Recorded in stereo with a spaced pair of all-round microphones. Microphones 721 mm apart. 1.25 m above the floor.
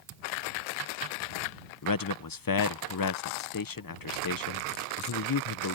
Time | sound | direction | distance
1.8 | a man speaking | 35° left (ahead or behind) | ?